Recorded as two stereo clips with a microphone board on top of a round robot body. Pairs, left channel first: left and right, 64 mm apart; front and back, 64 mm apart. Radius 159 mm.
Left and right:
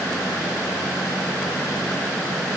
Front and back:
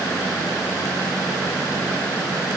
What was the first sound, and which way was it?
Only background noise.